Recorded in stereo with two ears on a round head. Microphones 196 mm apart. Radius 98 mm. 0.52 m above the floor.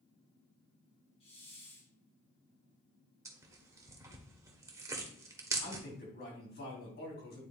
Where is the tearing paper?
15° right (ahead or behind), 1.3 m.